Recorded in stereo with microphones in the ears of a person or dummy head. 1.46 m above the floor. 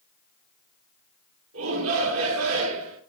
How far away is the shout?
About 3.5 m.